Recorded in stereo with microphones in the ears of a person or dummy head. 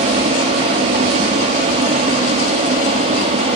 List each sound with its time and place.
0.0 s a fan: 35° right (ahead or behind), 1.0 m